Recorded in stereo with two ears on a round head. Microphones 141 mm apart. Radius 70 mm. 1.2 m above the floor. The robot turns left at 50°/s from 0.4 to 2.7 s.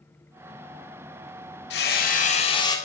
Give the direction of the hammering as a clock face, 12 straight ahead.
9 o'clock.